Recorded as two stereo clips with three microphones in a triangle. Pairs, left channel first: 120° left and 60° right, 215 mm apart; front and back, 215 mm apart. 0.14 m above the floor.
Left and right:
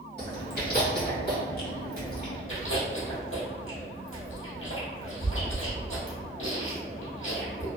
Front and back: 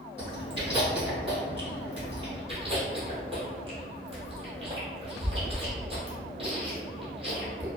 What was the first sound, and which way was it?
Chewing, 125° left.